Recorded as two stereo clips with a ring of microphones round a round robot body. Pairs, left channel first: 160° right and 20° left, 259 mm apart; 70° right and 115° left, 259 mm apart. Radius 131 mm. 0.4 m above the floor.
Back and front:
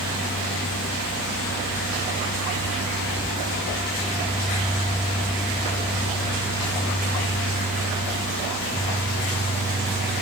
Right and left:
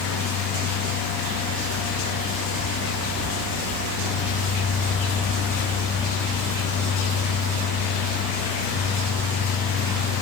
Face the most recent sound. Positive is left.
No sound to turn to.